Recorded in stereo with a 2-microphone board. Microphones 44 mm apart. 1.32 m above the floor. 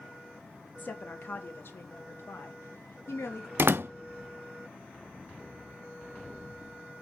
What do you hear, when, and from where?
0.8 s a woman speaking: 40° left (ahead or behind), 1.5 m; by 3.5 s 75° left (ahead or behind), 2.5 m
3.6 s a door slam: 55° right (ahead or behind), 0.5 m